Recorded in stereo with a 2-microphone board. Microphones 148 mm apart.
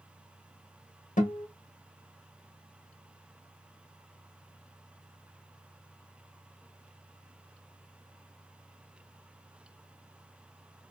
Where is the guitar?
60° left (ahead or behind), 1.3 m.